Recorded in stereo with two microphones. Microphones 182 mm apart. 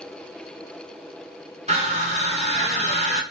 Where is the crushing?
35° right (ahead or behind), 1.1 m.